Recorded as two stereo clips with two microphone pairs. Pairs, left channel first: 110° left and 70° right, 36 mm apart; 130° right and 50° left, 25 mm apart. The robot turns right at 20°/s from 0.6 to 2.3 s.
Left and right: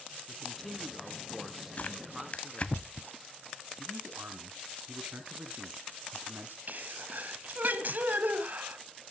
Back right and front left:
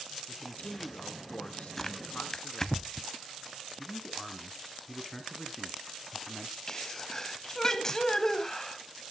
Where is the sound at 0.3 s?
165° right, 3 m; by 2.8 s 130° right, 3 m.